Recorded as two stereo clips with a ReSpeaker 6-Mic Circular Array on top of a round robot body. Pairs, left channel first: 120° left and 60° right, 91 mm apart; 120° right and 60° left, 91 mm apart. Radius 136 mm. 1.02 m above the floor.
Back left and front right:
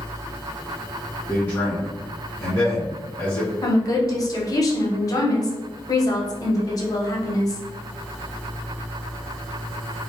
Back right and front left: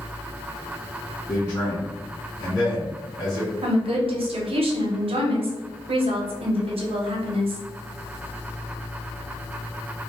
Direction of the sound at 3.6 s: 70° left.